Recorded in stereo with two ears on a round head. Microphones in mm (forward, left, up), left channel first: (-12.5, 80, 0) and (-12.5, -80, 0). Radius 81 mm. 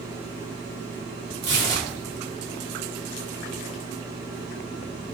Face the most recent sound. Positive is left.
turn(degrees=-60)  # may be behind; listen again after turning